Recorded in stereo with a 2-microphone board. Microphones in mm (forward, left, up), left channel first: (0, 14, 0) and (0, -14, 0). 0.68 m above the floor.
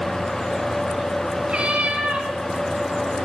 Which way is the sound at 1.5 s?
45° right (ahead or behind).